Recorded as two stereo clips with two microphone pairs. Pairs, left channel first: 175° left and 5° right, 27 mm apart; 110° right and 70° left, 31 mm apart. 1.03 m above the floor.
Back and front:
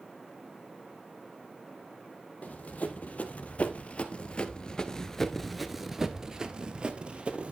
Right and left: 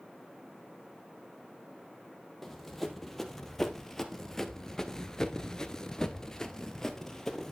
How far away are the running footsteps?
About 2 m.